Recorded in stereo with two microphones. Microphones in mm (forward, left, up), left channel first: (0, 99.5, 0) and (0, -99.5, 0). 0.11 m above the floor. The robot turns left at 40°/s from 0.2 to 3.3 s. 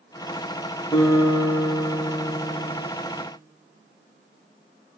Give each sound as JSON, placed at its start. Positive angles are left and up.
{"t": 0.9, "sound": "a guitar", "azimuth_deg": 5, "distance_m": 3.5}